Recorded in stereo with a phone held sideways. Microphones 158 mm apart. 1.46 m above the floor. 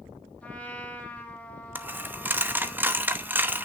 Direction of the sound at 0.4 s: 10° left (ahead or behind).